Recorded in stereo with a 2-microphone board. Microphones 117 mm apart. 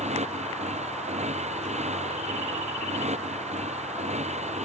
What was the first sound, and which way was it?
A motorcycle, 75° right (ahead or behind).